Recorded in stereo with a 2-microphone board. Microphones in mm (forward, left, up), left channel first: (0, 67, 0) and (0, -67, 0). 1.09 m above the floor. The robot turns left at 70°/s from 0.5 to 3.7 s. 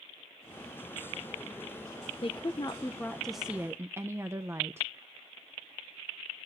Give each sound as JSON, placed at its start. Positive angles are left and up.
{"t": 2.2, "sound": "a woman speaking", "azimuth_deg": 75, "distance_m": 0.5}